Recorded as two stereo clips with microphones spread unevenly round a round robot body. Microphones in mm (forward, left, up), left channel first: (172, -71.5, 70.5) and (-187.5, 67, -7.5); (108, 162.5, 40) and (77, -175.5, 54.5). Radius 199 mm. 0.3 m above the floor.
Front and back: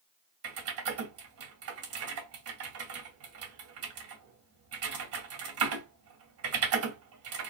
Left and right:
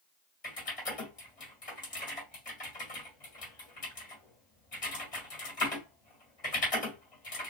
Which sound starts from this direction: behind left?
Typing on a keyboard, at 0.4 s.